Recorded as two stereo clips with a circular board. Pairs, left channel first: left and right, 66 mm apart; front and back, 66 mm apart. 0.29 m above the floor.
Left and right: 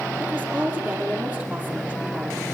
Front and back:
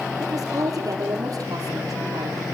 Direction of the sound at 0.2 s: 150° right.